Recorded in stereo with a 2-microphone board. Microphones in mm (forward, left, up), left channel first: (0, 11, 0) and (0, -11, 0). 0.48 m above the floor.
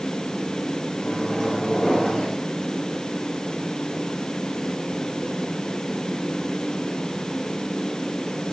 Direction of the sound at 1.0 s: 45° left (ahead or behind).